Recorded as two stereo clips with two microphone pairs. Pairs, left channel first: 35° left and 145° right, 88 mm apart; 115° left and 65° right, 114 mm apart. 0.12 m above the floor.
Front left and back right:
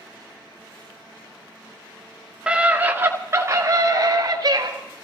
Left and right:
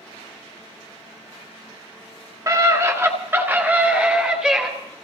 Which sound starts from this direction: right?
A scream, at 2.5 s.